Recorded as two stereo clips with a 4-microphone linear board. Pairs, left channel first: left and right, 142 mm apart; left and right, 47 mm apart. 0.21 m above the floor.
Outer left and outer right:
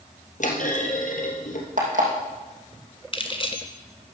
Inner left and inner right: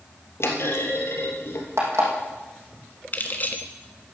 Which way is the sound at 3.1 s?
40° left (ahead or behind).